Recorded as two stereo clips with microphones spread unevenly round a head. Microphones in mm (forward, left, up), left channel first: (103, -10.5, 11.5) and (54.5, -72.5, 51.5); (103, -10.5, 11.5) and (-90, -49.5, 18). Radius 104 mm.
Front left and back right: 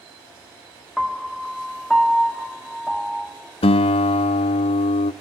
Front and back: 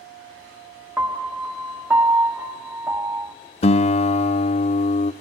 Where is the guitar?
70° left, 0.7 m.